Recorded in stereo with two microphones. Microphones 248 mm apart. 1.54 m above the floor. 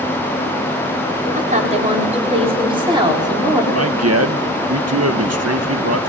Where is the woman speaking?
30° right (ahead or behind), 5 m; by 3.6 s 15° right (ahead or behind), 5 m.